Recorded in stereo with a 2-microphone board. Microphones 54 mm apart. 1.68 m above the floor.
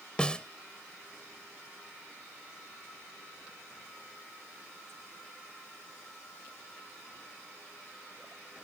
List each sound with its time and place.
0.2 s a snare drum: 20° left (ahead or behind)